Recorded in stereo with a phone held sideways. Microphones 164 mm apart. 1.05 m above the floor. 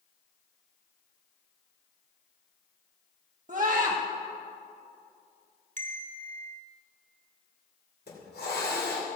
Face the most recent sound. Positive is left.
turn(degrees=80)